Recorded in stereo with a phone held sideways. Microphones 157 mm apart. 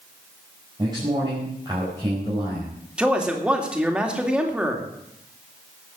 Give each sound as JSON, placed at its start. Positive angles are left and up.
{"t": 0.8, "sound": "a man speaking", "side_deg": -25, "distance_m": 4.5}
{"t": 3.0, "sound": "a man speaking", "side_deg": -5, "distance_m": 2.5}